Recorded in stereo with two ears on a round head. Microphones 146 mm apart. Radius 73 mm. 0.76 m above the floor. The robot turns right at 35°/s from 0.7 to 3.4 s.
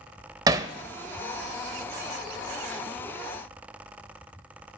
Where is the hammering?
20° right (ahead or behind), 0.6 m.